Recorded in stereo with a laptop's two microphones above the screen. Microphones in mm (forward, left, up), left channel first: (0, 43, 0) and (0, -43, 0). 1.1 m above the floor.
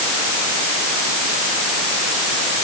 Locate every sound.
Only background noise.